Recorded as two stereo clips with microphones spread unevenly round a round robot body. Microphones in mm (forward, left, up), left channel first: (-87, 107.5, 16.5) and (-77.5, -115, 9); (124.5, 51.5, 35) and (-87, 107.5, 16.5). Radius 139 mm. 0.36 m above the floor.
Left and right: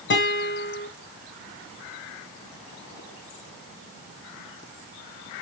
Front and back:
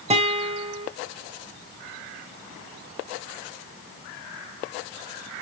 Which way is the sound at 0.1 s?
115° left.